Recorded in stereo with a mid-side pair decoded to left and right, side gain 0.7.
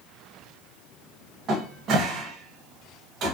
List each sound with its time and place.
1.5 s a cupboard door: 45° right, 0.9 m